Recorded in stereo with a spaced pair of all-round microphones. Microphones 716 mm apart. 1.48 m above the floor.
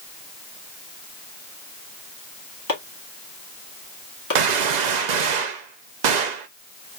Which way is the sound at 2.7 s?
30° left (ahead or behind).